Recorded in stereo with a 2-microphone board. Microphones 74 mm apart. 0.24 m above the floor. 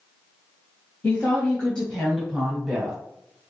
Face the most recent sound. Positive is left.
turn(degrees=-15)  # may be behind; listen again after turning